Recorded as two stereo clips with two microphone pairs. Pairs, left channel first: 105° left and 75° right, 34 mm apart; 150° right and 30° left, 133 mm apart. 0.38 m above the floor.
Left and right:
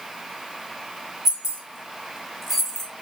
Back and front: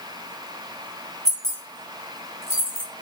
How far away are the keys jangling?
About 1.4 m.